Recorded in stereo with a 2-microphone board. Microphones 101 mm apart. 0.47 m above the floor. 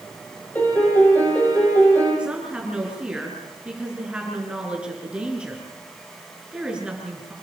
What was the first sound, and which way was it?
A piano, 15° left (ahead or behind).